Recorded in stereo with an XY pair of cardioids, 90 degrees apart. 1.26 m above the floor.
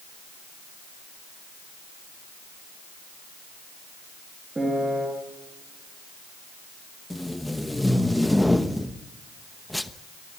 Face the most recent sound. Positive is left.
turn(degrees=5)